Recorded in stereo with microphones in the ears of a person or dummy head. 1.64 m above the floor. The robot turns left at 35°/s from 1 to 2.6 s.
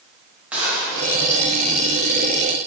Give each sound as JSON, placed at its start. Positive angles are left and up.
{"t": 0.5, "sound": "a gunshot", "side_deg": -5, "distance_m": 2.5}